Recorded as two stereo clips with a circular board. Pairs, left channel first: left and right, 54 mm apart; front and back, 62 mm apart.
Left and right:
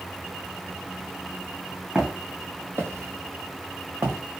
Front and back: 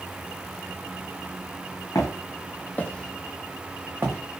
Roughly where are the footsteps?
Ahead.